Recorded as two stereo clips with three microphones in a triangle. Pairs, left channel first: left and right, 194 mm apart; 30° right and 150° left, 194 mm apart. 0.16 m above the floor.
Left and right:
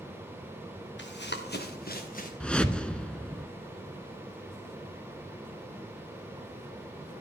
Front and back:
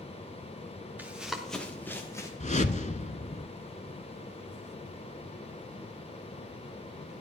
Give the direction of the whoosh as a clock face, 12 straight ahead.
12 o'clock.